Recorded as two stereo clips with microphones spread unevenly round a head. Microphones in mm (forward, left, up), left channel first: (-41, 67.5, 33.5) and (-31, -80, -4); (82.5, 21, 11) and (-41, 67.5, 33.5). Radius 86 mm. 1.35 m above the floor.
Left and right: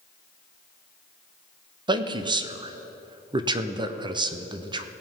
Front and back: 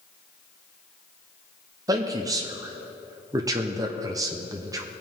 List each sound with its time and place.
1.9 s a man speaking: 130° right, 0.9 m